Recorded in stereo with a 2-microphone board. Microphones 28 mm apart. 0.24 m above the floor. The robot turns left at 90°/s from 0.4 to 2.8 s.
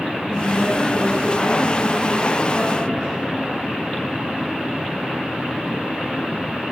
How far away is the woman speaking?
About 3 m.